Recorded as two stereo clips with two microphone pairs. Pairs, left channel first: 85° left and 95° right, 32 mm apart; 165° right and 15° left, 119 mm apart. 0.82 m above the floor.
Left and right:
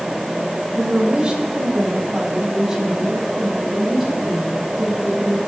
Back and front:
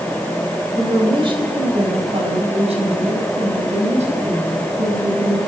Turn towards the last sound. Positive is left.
turn(degrees=-5)